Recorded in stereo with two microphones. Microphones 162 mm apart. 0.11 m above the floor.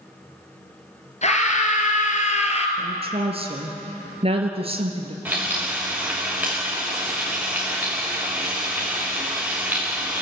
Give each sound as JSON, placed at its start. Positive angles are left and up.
{"t": 1.2, "sound": "a scream", "side_deg": 45, "distance_m": 2.5}
{"t": 2.8, "sound": "a woman speaking", "side_deg": -40, "distance_m": 2.5}
{"t": 5.2, "sound": "frying", "side_deg": -10, "distance_m": 4.5}